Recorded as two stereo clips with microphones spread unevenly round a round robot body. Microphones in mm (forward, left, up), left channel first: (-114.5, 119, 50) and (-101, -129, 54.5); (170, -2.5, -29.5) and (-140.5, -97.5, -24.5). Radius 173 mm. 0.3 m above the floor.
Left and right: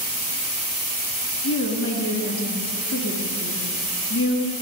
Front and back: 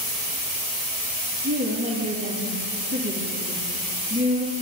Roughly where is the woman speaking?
Behind left.